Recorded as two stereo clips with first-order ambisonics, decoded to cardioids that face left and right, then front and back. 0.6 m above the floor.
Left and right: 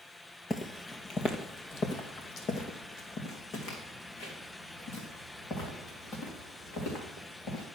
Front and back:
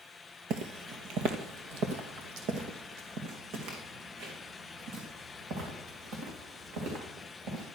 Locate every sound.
0.5 s footsteps: 160° left, 0.8 m; by 7.6 s 140° left, 5 m